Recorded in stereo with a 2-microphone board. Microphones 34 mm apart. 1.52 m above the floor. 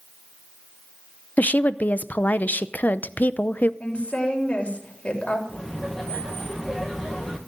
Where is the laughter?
5° left (ahead or behind), 1.9 m.